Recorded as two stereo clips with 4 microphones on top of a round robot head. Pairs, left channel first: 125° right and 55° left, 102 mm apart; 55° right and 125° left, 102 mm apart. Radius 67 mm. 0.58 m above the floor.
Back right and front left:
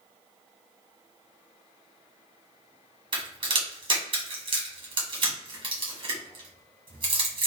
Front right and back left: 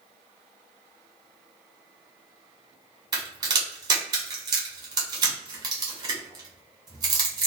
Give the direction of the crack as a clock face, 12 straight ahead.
9 o'clock.